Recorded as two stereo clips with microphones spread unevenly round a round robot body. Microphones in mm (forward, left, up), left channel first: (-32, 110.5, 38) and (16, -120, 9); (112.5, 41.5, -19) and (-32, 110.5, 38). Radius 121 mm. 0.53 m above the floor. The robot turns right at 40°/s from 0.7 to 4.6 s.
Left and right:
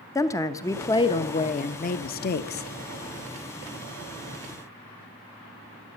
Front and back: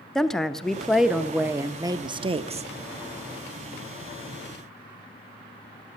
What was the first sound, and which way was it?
A woman speaking, 25° left.